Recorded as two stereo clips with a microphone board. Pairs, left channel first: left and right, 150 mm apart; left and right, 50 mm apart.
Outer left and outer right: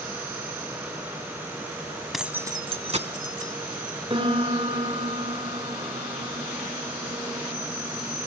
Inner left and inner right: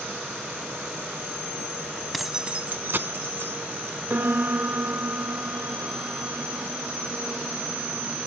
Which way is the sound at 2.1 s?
Centre (ahead or behind).